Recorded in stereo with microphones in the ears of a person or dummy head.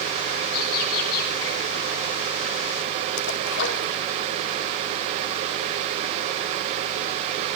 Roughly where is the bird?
Left.